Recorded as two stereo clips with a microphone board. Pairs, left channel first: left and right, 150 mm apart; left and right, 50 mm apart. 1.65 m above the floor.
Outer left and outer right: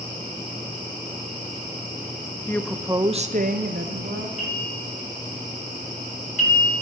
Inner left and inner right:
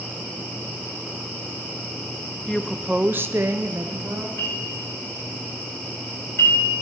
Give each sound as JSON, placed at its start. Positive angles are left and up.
{"t": 2.5, "sound": "a woman speaking", "side_deg": 15, "distance_m": 0.6}
{"t": 4.4, "sound": "a bell", "side_deg": 55, "distance_m": 5.5}